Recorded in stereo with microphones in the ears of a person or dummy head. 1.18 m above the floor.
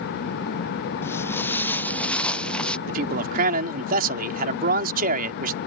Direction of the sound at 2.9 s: 50° right (ahead or behind).